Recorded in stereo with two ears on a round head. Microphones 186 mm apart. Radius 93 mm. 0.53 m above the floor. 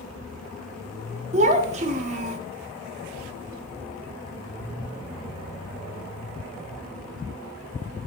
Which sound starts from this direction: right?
A child speaking, at 1.3 s.